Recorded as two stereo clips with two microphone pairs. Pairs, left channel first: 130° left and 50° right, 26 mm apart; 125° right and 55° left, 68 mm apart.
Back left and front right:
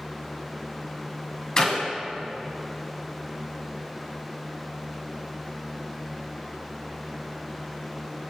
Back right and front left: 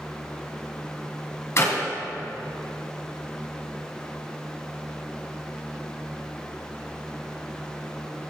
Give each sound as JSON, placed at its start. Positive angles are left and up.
{"t": 1.6, "sound": "a clap", "azimuth_deg": -170, "distance_m": 3.0}